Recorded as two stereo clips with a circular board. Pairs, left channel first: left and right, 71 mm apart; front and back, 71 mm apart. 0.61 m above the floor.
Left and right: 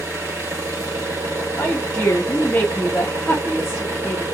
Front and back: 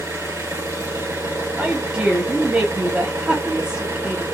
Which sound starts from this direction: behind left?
A woman speaking, at 1.6 s.